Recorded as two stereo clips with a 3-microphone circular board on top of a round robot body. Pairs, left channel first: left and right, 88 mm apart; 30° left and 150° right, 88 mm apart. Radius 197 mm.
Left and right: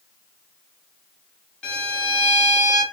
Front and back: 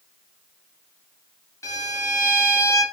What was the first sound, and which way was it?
A violin, 20° left.